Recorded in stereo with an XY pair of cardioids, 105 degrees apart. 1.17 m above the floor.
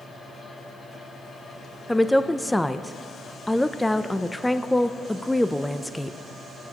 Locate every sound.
0.0 s a fan: 45° left, 2.5 m
1.9 s a woman speaking: 5° left, 0.5 m